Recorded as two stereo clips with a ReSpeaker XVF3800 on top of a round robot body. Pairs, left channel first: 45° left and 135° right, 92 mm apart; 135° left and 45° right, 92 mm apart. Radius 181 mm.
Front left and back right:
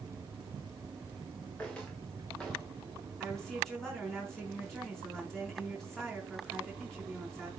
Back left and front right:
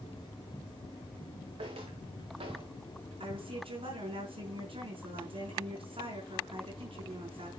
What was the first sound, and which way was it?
Footsteps, 35° right.